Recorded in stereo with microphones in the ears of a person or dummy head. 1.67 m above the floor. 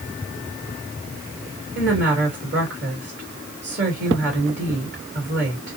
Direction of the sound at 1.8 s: 60° right (ahead or behind).